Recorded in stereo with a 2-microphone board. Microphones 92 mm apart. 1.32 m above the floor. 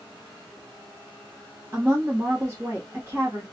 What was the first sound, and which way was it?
A woman speaking, 30° right (ahead or behind).